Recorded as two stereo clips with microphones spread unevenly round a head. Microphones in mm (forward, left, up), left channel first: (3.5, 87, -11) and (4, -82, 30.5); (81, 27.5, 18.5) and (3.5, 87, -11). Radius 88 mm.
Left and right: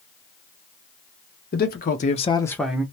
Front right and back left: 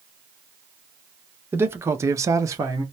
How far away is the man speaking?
About 0.9 m.